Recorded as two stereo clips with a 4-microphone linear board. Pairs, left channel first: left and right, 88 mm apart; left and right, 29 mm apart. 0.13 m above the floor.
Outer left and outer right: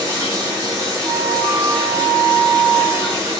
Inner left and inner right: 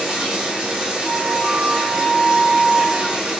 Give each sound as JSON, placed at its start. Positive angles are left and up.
{"t": 0.0, "sound": "running water", "side_deg": -40, "distance_m": 5.0}
{"t": 1.0, "sound": "a flute", "side_deg": -40, "distance_m": 4.0}